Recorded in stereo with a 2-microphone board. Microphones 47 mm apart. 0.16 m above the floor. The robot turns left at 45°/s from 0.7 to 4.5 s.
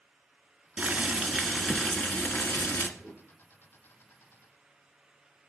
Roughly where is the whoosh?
Centre.